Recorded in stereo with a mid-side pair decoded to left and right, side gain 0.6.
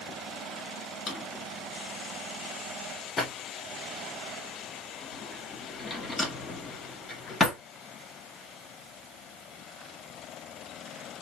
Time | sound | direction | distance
1.1 | a drawer | 35° left | 1.9 m